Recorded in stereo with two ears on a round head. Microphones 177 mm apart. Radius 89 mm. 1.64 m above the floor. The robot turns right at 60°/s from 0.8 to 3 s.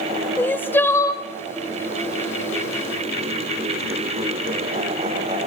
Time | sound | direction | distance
0.4 | crying | 10° left (ahead or behind) | 0.7 m